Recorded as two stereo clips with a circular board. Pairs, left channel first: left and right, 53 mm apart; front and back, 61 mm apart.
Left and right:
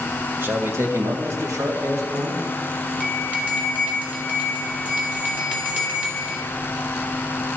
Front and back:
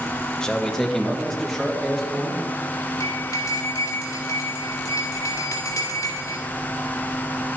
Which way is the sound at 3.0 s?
30° right.